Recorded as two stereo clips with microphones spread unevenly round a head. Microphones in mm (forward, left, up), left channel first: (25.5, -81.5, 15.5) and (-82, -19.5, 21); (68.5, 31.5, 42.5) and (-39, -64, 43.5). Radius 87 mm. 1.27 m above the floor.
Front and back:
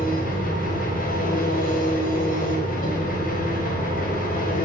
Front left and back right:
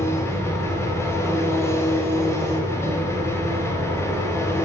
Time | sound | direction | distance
0.0 | an engine running | 30° right | 7 m